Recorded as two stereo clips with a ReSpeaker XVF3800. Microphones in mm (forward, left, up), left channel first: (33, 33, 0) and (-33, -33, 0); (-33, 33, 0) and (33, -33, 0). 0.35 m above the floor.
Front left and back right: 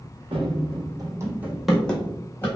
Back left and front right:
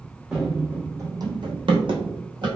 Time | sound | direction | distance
0.3 | running footsteps | 130° right | 0.8 m